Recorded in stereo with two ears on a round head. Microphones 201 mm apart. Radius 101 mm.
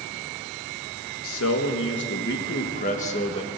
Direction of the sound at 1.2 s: 70° left (ahead or behind).